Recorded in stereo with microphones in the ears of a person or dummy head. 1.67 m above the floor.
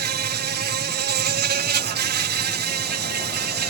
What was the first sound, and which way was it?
An insect, 50° right (ahead or behind).